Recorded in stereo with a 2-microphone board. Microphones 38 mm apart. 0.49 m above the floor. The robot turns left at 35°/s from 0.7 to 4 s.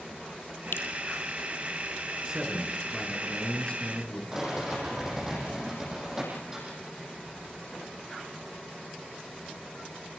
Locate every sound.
0.7 s dripping: 75° left (ahead or behind), 2 m; by 0.9 s 70° left (ahead or behind), 2 m
2.2 s a man speaking: 155° right, 6.5 m; by 4.2 s 145° left, 6.5 m
4.3 s a rattle: 15° right (ahead or behind), 9.5 m